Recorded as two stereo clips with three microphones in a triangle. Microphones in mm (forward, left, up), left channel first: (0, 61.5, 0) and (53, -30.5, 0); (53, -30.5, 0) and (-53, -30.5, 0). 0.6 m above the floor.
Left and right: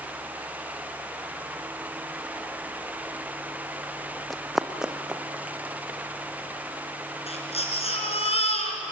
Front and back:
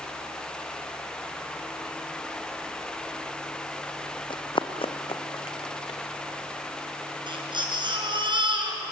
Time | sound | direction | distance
4.3 | running footsteps | 30° left | 1.3 m
7.3 | a baby crying | 135° left | 4.5 m